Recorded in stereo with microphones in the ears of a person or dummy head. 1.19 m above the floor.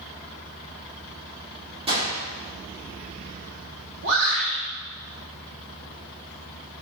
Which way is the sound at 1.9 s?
30° right (ahead or behind).